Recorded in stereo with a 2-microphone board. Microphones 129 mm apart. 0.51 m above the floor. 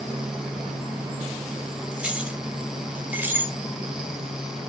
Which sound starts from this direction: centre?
Keys jangling, at 1.9 s.